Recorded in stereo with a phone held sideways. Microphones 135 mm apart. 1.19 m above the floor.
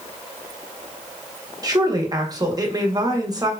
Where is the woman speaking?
30° right (ahead or behind), 0.8 m.